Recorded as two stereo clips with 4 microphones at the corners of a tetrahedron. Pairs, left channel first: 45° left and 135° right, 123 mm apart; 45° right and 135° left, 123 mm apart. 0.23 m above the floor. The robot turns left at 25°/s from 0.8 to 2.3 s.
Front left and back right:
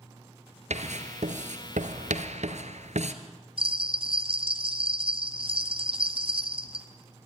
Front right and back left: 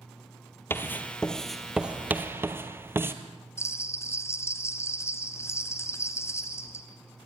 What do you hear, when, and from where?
0.7 s writing: 115° right, 1.7 m; by 3.1 s 155° right, 1.7 m
3.6 s a bell: 110° right, 1.9 m